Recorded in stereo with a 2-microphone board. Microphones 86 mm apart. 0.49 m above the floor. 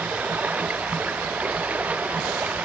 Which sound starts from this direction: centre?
Running water, at 0.0 s.